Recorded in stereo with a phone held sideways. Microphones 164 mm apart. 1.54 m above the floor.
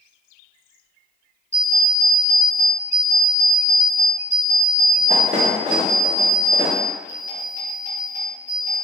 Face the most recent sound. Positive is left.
turn(degrees=-45)  # may be behind; listen again after turning